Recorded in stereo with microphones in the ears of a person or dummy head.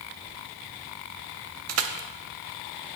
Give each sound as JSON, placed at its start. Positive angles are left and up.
{"t": 1.7, "sound": "crushing", "side_deg": -75, "distance_m": 0.5}